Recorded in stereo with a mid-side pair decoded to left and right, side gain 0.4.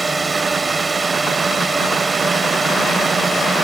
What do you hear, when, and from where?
0.0 s a drone: 25° right